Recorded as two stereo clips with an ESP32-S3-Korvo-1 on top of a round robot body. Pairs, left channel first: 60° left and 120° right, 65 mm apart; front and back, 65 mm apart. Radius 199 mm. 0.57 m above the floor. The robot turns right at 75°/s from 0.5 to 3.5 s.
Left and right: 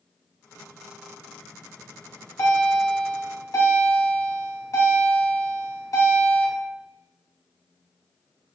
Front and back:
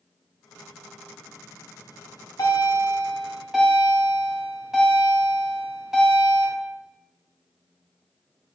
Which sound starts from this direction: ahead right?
A bell, at 1.8 s.